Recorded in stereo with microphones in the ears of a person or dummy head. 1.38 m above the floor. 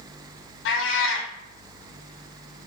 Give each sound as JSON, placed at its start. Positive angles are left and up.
{"t": 0.7, "sound": "a cat meowing", "side_deg": 65, "distance_m": 1.9}